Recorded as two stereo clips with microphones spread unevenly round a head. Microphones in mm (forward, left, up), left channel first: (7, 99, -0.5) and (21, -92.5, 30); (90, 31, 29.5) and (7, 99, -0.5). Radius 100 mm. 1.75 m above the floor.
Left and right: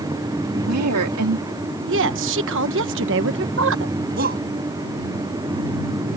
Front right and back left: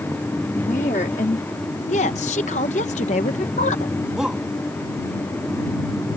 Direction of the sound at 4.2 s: 130° right.